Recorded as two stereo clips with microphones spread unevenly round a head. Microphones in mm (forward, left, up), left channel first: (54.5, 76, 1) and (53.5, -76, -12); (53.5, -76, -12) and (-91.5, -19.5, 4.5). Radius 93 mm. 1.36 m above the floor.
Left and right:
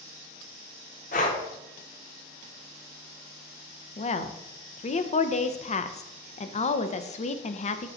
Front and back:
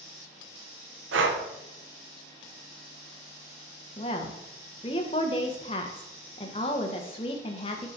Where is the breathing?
145° left, 1.0 m.